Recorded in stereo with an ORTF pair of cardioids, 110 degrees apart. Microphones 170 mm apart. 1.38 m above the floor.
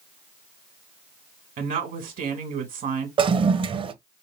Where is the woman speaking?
55° right, 1.9 m.